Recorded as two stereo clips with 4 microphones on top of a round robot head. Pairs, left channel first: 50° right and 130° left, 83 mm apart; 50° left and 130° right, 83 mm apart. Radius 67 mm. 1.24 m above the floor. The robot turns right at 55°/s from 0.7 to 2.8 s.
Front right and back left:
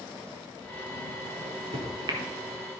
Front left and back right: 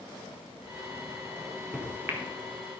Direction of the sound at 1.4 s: 125° left.